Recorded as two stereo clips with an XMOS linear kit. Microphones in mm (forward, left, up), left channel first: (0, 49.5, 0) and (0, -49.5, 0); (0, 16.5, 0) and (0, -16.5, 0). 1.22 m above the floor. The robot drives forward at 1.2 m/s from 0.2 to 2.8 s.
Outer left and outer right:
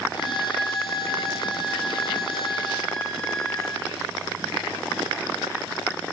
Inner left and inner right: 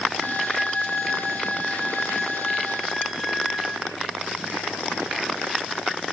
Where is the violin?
5° left (ahead or behind), 8 m.